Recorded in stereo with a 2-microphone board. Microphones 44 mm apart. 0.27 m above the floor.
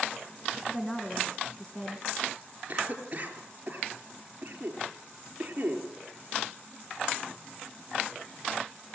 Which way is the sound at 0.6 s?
15° left (ahead or behind).